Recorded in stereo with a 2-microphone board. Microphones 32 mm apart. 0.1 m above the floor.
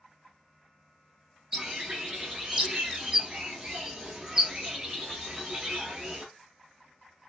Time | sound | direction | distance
1.5 | a bird | 25° right (ahead or behind) | 1.1 m